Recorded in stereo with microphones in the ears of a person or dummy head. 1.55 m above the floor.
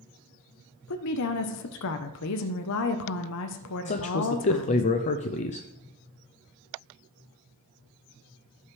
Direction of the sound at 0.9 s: 70° left (ahead or behind).